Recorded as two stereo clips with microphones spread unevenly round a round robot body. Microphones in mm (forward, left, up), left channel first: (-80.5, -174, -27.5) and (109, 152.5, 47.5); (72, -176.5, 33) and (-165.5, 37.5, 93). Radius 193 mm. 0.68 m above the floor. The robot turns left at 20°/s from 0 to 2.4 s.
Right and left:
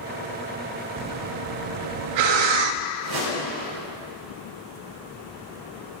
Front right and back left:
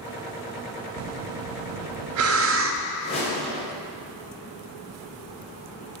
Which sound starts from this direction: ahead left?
A whoosh, at 3.0 s.